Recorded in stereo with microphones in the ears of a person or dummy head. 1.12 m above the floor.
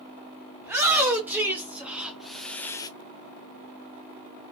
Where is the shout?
10° right (ahead or behind), 1.9 m; by 2.9 s 25° left (ahead or behind), 0.5 m.